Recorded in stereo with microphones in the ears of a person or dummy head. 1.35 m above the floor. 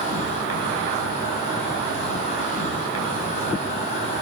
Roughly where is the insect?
Left.